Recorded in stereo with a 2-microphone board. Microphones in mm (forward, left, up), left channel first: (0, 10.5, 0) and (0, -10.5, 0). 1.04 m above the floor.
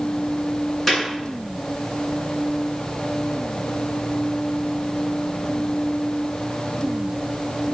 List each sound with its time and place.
0.9 s a clap: 10° left (ahead or behind), 8 m